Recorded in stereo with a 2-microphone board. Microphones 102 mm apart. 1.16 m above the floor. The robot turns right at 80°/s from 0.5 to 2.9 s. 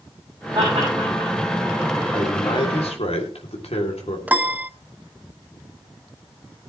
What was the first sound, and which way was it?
Laughter, 40° right (ahead or behind).